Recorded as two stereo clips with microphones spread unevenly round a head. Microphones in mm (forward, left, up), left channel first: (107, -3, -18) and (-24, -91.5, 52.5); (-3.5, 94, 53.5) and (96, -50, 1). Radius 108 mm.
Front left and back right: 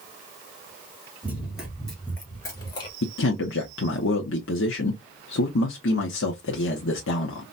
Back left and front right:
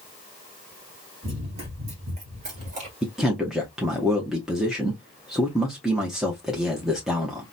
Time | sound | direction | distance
1.2 | running footsteps | 125° right | 2 m
3.0 | a man speaking | 45° left | 0.8 m